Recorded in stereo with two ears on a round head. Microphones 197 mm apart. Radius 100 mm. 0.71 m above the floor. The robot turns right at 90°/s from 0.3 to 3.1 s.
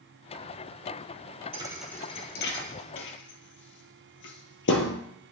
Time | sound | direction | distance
1.5 | a thud | 25° right (ahead or behind) | 1.4 m